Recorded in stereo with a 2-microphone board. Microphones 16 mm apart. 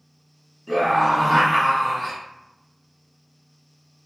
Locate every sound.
0.7 s a scream: 10° left (ahead or behind), 1.0 m